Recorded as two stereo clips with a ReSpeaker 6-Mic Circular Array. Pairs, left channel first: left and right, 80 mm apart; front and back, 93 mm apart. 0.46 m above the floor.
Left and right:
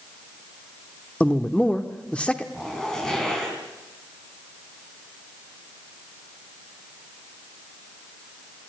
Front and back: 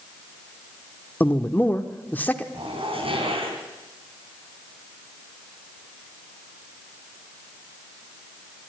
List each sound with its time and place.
1.2 s a man speaking: 40° left, 1.0 m
2.5 s a zipper: 175° left, 3.5 m